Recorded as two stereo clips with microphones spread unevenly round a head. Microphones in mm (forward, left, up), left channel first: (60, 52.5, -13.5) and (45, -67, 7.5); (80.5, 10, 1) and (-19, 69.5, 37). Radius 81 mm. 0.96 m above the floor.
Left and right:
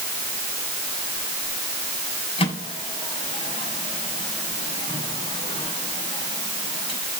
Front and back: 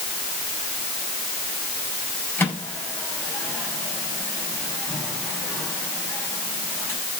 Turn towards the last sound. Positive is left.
turn(degrees=45)